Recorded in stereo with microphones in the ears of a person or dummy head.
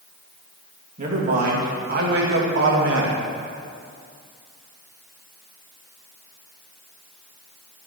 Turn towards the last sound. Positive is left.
turn(degrees=-75)  # may be behind; listen again after turning